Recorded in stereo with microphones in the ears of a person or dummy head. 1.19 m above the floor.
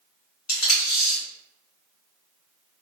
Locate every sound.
0.5 s tape being pulled: 85° left, 1.6 m